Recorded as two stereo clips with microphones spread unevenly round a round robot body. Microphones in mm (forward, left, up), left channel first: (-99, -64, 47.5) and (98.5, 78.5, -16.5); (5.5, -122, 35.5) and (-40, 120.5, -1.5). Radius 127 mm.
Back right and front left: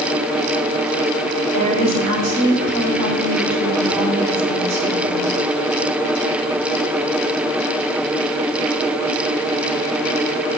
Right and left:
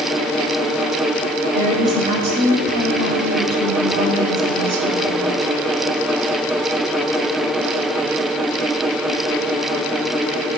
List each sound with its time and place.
1.5 s a woman speaking: 30° left, 4 m